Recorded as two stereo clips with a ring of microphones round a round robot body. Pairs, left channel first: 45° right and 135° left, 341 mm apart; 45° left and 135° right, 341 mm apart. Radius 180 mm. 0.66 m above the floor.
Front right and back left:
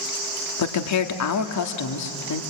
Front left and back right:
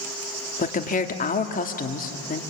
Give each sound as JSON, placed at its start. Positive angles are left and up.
{"t": 0.6, "sound": "a woman speaking", "azimuth_deg": -20, "distance_m": 1.8}